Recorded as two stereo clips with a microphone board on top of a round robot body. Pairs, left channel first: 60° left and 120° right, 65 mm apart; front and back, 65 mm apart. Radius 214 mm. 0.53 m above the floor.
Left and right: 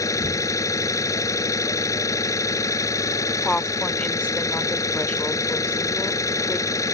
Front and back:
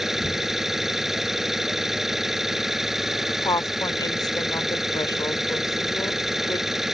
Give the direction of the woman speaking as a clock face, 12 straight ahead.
12 o'clock.